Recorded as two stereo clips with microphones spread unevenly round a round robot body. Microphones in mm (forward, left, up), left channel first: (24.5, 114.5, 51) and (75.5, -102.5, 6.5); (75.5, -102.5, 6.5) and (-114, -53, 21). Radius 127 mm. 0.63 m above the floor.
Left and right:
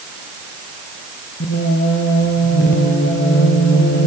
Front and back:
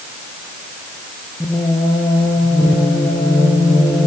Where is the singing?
65° left, 3 m.